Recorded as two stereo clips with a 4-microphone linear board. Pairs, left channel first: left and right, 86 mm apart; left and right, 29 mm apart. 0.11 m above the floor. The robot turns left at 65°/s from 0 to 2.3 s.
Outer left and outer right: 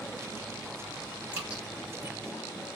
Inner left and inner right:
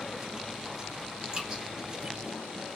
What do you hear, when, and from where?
1.3 s dripping: 20° right (ahead or behind), 1.4 m; by 1.6 s 10° right (ahead or behind), 1.4 m